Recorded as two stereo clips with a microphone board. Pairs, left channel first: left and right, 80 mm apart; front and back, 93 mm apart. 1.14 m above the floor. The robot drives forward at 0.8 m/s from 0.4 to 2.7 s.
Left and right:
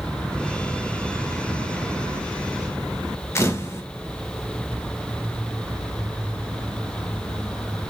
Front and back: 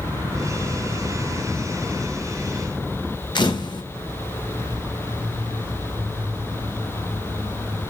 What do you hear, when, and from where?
3.4 s a camera shutter: 35° left, 1.2 m